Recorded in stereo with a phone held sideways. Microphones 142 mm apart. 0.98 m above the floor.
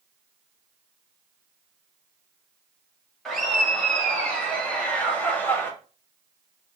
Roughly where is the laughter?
Centre.